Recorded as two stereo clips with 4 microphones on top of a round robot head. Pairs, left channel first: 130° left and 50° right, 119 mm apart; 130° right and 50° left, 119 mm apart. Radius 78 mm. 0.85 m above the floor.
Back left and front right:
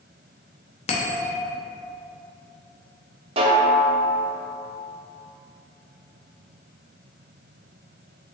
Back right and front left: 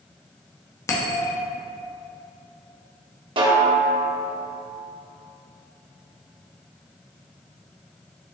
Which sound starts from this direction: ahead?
A snare drum, at 3.4 s.